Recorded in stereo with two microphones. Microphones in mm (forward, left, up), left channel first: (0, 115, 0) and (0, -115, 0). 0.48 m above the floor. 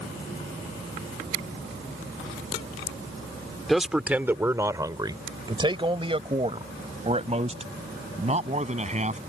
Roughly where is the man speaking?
Centre.